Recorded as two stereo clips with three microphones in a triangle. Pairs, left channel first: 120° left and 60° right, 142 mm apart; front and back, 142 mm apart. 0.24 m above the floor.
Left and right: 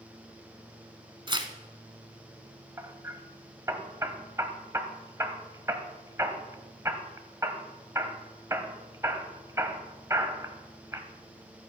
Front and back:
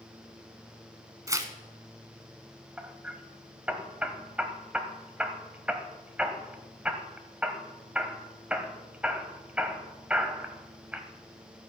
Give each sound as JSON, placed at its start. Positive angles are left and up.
{"t": 1.3, "sound": "tearing paper", "azimuth_deg": -115, "distance_m": 1.3}
{"t": 2.8, "sound": "hammering", "azimuth_deg": -105, "distance_m": 1.3}